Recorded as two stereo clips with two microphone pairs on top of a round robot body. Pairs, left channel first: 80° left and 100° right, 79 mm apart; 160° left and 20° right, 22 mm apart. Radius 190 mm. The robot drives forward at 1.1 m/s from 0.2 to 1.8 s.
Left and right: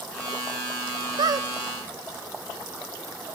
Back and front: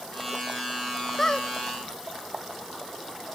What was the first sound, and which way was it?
A squeak, 125° right.